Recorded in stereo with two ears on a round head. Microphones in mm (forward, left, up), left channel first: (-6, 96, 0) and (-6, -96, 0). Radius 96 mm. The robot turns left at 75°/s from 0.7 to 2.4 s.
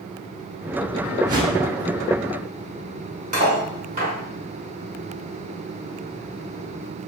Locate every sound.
1.3 s a whoosh: 15° right (ahead or behind), 0.8 m; by 1.6 s 40° right (ahead or behind), 0.8 m
3.3 s cutlery clinking: 40° right (ahead or behind), 0.9 m